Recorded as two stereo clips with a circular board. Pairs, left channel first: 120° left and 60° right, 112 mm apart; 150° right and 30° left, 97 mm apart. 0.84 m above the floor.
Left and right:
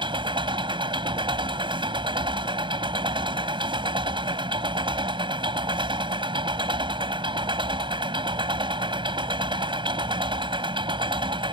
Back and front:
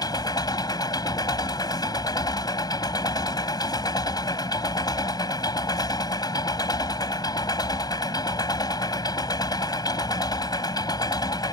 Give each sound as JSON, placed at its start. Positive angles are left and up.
{"t": 0.0, "sound": "an engine running", "azimuth_deg": -105}